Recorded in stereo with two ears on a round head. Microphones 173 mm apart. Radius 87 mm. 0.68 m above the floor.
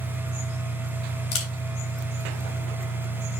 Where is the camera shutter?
80° left, 3 m.